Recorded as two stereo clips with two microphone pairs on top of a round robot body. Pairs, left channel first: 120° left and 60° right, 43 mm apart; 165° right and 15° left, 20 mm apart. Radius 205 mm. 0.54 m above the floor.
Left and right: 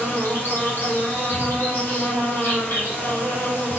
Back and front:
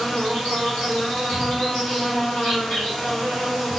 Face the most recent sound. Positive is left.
turn(degrees=150)